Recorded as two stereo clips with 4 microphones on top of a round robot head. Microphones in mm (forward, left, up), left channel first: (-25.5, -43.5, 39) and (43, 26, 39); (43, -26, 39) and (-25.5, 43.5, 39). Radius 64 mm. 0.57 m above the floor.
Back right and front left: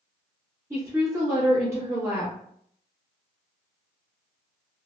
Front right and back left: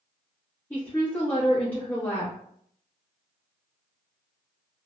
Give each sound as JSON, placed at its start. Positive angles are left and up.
{"t": 0.7, "sound": "a woman speaking", "azimuth_deg": 15, "distance_m": 1.1}